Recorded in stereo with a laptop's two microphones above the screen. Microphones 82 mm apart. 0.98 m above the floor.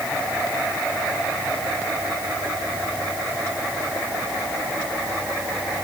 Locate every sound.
Only background noise.